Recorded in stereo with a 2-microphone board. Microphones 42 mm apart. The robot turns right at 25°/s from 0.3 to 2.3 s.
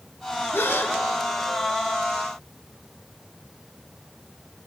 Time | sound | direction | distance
0.5 | a gasp | 65° left (ahead or behind) | 0.7 m